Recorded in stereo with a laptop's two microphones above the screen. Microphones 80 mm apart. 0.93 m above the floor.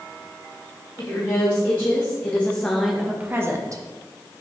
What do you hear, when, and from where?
1.0 s a woman speaking: 40° left (ahead or behind), 1.6 m; by 3.8 s 45° right (ahead or behind), 0.8 m